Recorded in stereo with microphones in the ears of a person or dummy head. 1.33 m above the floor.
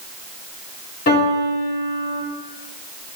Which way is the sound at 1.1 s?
50° left (ahead or behind).